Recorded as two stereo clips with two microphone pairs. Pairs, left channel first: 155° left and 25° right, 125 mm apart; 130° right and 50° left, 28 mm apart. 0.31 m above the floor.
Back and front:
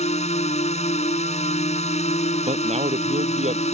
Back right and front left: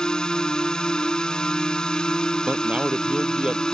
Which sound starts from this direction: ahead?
A man speaking, at 2.5 s.